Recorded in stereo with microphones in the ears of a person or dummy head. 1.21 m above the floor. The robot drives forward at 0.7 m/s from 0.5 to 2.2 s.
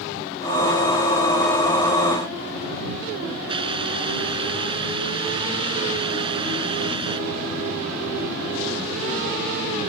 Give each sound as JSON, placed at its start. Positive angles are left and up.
{"t": 3.5, "sound": "a hiss", "side_deg": -25}